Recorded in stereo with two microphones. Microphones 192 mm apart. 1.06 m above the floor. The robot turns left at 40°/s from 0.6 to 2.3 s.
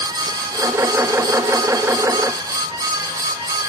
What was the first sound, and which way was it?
Only background noise.